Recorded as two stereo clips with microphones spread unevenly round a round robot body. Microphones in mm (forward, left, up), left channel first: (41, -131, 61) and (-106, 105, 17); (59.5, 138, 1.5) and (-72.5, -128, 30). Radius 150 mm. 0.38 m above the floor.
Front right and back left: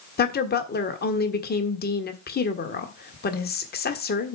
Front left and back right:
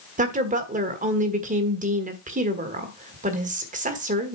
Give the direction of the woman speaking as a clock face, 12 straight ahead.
3 o'clock.